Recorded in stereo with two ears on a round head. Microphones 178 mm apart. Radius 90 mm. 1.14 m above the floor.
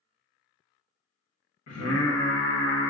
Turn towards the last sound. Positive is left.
turn(degrees=75)  # may be behind; listen again after turning